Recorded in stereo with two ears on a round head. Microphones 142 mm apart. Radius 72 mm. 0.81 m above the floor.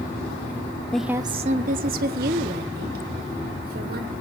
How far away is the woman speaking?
About 0.5 m.